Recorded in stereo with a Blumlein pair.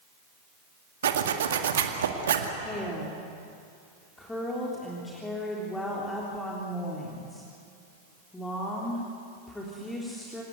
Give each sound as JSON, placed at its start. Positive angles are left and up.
{"t": 1.0, "sound": "a zipper", "azimuth_deg": -60, "distance_m": 1.9}
{"t": 2.6, "sound": "a woman speaking", "azimuth_deg": 10, "distance_m": 3.5}